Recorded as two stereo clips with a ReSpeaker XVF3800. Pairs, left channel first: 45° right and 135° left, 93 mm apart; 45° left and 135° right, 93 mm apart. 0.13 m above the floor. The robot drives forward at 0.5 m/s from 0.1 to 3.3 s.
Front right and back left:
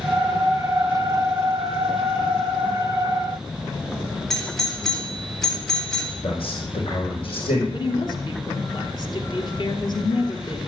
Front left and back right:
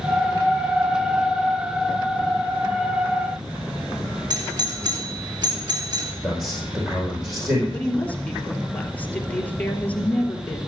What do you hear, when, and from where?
4.3 s a doorbell: 130° right, 3 m
6.2 s a man speaking: 55° right, 5 m
7.7 s a woman speaking: 25° right, 2.5 m